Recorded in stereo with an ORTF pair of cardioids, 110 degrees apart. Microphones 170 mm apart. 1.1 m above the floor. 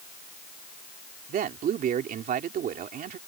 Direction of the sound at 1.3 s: 60° right.